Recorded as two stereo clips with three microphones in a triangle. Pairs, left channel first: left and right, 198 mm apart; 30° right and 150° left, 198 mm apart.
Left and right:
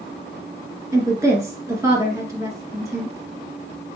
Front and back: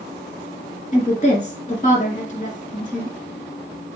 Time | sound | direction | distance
0.9 | a woman speaking | 25° right | 1.9 m